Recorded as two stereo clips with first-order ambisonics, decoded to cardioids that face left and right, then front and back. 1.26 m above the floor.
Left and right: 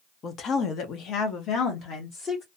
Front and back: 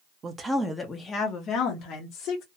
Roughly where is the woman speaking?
Behind left.